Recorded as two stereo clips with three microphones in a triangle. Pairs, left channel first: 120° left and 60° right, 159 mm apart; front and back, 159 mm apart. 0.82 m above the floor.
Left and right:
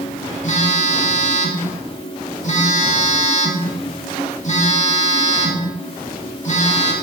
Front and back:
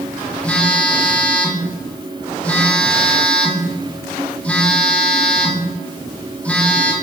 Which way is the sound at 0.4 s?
80° left.